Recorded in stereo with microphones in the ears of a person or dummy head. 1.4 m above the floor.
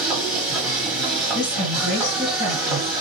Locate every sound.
0.0 s a machine running: centre (ahead or behind), 1.4 m
1.3 s a woman speaking: 55° left (ahead or behind), 1.5 m